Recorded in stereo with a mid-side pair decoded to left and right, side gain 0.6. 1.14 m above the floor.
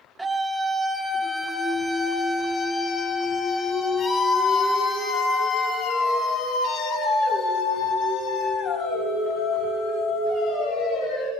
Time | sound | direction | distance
0.2 | a scream | 15° right | 4.5 m